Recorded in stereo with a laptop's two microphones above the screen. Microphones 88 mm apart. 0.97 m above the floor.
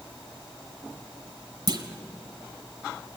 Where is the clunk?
55° right (ahead or behind), 1.3 m.